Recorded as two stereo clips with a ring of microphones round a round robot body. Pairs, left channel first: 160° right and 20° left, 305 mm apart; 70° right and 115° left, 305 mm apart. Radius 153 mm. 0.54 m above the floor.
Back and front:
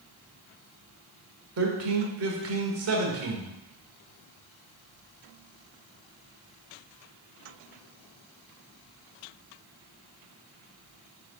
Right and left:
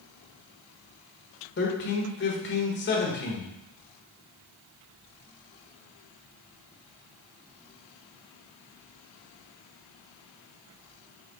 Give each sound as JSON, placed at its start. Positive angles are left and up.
{"t": 1.6, "sound": "a man speaking", "azimuth_deg": -15, "distance_m": 1.6}